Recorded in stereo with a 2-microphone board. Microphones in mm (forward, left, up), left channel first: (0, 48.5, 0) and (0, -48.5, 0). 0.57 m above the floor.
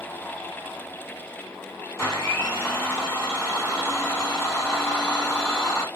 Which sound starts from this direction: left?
A blender, at 2.0 s.